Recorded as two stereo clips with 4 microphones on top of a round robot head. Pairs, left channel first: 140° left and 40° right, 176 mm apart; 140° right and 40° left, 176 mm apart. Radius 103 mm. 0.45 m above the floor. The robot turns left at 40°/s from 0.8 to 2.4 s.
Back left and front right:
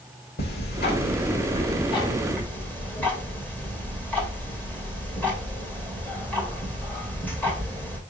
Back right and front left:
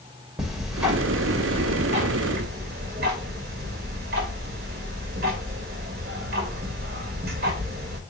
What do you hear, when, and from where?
0.4 s ticking: 125° left, 2 m; by 8.0 s 60° left, 2 m